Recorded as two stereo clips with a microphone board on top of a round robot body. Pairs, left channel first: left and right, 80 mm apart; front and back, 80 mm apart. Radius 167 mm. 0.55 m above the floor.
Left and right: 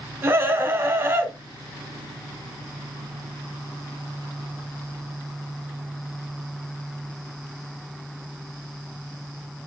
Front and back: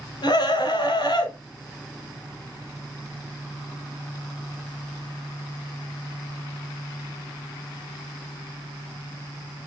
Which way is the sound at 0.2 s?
30° right.